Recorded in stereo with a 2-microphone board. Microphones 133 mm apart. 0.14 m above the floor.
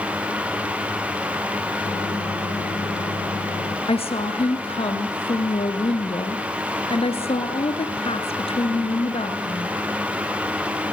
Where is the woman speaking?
45° left (ahead or behind), 2.5 m.